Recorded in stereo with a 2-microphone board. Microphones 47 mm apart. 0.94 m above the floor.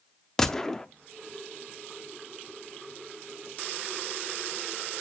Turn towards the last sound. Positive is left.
turn(degrees=10)  # may be behind; listen again after turning